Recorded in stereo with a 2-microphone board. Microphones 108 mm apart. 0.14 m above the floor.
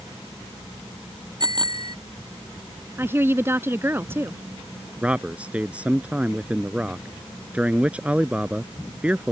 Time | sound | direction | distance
1.4 | a bicycle bell | 45° right (ahead or behind) | ?
3.0 | a woman speaking | 25° right (ahead or behind) | ?
5.0 | a man speaking | 10° right (ahead or behind) | ?